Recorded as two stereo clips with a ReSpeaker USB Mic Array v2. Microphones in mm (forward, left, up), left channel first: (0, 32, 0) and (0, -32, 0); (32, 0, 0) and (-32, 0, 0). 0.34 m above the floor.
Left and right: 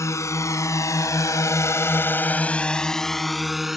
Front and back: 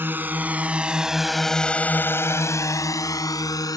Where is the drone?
125° left; by 3.8 s 5° right.